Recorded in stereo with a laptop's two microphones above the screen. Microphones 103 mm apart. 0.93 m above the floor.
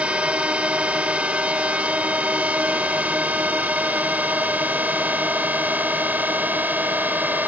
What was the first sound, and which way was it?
A drone, 10° right (ahead or behind).